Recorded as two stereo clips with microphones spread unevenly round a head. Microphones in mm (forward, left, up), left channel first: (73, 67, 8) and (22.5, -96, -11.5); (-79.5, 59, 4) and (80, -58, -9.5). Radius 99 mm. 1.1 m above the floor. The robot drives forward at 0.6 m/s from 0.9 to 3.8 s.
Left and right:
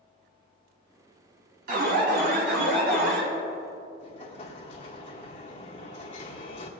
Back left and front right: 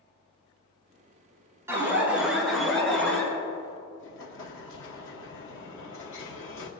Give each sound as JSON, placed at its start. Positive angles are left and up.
{"t": 1.7, "sound": "an alarm", "azimuth_deg": -110, "distance_m": 2.0}
{"t": 4.0, "sound": "an explosion", "azimuth_deg": 125, "distance_m": 1.1}